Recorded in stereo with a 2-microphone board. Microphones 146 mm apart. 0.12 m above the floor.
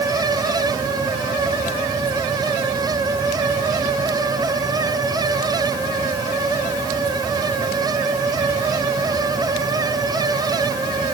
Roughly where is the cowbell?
No cowbell in this recording.